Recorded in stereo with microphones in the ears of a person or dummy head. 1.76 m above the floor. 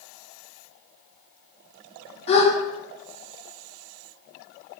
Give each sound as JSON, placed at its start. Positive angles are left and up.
{"t": 2.3, "sound": "a gasp", "side_deg": 40, "distance_m": 0.8}